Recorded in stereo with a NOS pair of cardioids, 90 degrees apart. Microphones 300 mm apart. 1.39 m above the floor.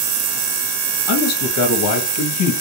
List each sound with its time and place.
1.1 s a man speaking: 70° left, 1.4 m